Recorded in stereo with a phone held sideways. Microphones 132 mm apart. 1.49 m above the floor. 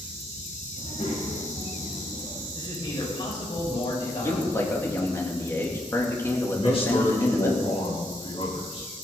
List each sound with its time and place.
0.8 s a child speaking: 60° left (ahead or behind), 5 m; by 2.4 s 50° left (ahead or behind), 4.5 m
2.5 s a man speaking: 35° left (ahead or behind), 6 m
4.1 s a man speaking: 20° left (ahead or behind), 3 m
6.5 s a man speaking: 45° left (ahead or behind), 4.5 m